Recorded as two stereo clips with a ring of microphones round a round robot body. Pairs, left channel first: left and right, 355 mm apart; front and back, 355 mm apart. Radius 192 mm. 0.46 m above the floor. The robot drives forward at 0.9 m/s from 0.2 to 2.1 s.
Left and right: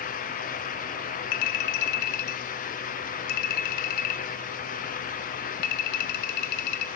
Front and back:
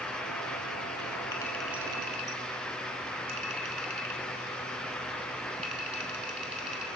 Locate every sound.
1.3 s a clink: 80° left, 1.6 m; by 6.9 s 105° left, 1.6 m